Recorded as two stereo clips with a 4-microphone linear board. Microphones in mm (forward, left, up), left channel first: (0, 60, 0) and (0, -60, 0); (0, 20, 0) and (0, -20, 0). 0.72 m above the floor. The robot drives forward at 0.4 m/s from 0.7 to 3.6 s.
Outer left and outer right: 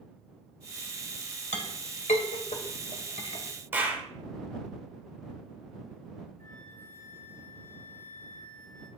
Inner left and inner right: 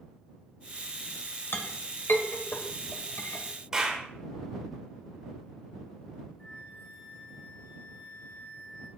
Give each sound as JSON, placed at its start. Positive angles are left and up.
{"t": 1.5, "sound": "a clink", "side_deg": 75, "distance_m": 2.0}
{"t": 3.7, "sound": "a clap", "side_deg": -15, "distance_m": 2.5}
{"t": 6.4, "sound": "a flute", "side_deg": 75, "distance_m": 3.5}